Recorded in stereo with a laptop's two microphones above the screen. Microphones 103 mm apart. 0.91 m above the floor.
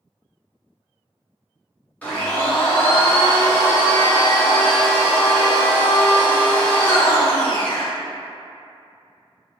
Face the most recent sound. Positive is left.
turn(degrees=15)  # may be behind; listen again after turning